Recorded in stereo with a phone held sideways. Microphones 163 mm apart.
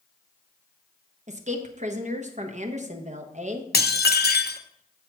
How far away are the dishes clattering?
About 0.6 m.